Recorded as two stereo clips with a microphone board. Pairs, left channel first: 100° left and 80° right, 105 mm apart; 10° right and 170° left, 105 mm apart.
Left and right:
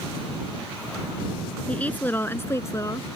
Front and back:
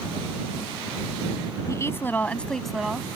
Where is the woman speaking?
30° left; by 3.2 s 100° left.